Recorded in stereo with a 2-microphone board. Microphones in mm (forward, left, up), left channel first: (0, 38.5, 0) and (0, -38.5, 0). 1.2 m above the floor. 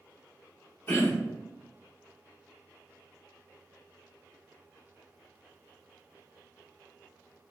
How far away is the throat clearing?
About 0.9 m.